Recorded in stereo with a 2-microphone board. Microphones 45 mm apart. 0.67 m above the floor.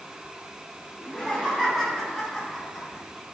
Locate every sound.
1.0 s laughter: 10° right (ahead or behind), 4 m; by 3.0 s centre (ahead or behind), 5.5 m